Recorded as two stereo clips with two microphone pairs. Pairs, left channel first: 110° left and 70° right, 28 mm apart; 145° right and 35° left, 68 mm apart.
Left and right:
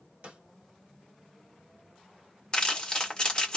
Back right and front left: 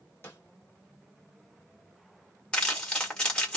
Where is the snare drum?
95° right, 1.4 m.